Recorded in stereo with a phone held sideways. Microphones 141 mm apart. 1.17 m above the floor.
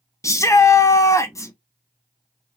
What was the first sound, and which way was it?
A shout, 20° left (ahead or behind).